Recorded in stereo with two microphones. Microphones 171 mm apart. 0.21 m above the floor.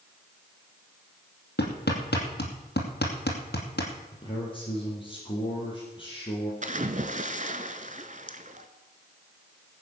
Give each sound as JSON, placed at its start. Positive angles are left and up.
{"t": 1.6, "sound": "hammering", "side_deg": 80, "distance_m": 2.5}
{"t": 4.1, "sound": "a man speaking", "side_deg": 30, "distance_m": 5.0}
{"t": 6.6, "sound": "a splash", "side_deg": -50, "distance_m": 1.0}